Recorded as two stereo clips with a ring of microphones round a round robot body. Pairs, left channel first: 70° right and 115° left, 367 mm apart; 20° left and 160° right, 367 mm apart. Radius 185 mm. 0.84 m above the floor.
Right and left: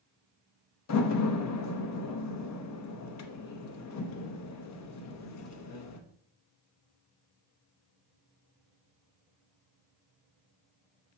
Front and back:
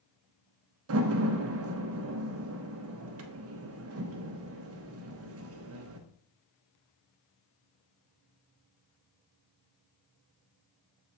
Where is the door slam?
110° right, 0.9 m.